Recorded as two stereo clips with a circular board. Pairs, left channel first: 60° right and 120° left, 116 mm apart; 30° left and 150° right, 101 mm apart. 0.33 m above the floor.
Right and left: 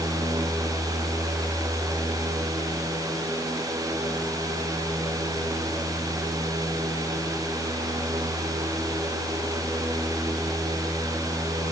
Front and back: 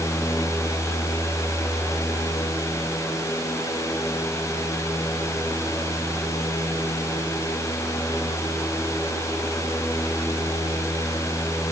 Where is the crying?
I don't hear crying.